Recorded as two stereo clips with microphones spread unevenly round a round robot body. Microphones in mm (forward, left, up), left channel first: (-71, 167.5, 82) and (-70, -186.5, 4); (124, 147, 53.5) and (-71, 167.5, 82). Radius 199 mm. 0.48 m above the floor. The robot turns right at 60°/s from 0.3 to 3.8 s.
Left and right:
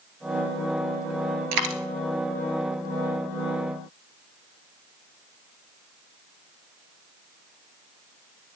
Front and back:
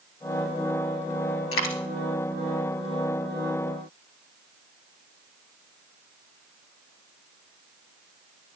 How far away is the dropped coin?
About 1.0 m.